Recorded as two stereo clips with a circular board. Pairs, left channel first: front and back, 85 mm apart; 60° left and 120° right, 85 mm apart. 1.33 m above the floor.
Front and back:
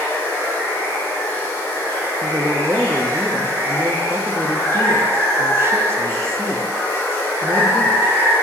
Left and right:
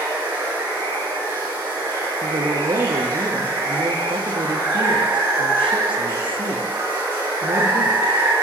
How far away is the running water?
About 3.5 m.